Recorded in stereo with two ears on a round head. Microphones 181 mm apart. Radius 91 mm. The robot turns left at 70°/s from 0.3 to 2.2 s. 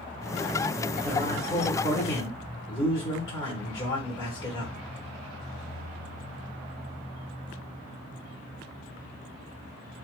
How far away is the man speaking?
About 1.4 m.